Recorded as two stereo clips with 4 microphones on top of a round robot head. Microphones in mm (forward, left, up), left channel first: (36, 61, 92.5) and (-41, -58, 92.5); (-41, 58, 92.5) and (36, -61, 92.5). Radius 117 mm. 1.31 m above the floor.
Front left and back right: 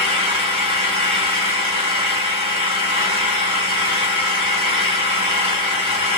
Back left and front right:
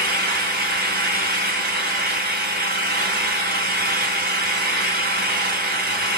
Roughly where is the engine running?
Right.